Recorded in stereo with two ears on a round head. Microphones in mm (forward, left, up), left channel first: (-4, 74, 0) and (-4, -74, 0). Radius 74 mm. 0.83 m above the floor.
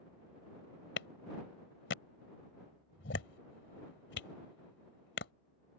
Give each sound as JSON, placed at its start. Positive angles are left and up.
{"t": 1.0, "sound": "a clap", "side_deg": 80}